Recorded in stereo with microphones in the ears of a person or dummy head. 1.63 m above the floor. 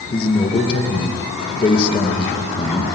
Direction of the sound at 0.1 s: 25° left (ahead or behind).